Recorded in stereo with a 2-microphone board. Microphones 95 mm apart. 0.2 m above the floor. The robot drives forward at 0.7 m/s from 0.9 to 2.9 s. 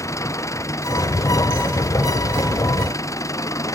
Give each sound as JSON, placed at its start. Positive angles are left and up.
{"t": 0.0, "sound": "an engine running", "side_deg": 35}